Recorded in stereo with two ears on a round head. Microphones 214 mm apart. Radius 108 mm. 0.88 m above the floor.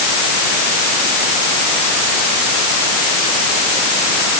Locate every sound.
Only background noise.